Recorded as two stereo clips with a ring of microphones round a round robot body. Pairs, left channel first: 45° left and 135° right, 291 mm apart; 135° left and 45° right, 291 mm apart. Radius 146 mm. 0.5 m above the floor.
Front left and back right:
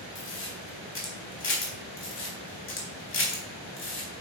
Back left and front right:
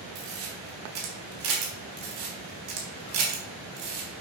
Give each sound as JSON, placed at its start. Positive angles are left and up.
{"t": 0.1, "sound": "a camera shutter", "azimuth_deg": -5, "distance_m": 3.5}